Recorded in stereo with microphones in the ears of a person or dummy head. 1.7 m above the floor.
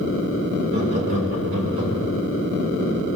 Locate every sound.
0.7 s laughter: 40° right (ahead or behind), 9.5 m; by 2.1 s 45° right (ahead or behind), 9.5 m